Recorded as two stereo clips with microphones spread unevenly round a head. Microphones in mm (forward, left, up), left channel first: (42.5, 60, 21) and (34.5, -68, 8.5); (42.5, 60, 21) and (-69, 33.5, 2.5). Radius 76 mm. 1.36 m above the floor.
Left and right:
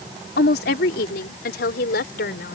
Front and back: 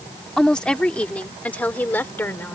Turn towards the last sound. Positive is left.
turn(degrees=85)